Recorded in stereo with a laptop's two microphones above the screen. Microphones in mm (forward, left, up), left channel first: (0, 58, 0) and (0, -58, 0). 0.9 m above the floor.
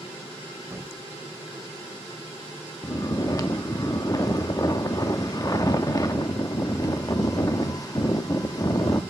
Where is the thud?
20° right (ahead or behind), 1.6 m.